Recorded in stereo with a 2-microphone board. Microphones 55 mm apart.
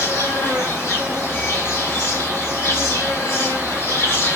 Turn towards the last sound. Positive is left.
turn(degrees=45)  # may be behind; listen again after turning